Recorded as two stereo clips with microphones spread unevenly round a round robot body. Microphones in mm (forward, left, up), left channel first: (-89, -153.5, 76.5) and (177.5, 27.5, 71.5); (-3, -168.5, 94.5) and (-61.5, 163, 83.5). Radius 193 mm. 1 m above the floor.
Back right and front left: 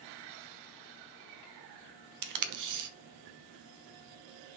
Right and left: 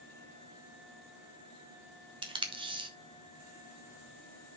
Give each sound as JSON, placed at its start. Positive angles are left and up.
{"t": 2.2, "sound": "tape being pulled", "azimuth_deg": 25, "distance_m": 1.1}